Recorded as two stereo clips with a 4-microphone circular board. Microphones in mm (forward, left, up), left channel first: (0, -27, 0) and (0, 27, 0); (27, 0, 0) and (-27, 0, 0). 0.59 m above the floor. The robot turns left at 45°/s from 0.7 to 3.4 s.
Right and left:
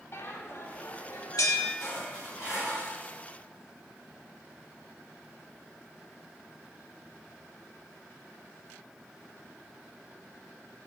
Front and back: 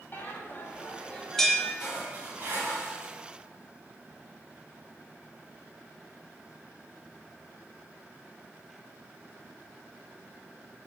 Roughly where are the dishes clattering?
Right.